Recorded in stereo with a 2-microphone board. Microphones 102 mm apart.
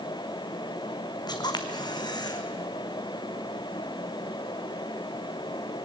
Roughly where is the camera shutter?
Left.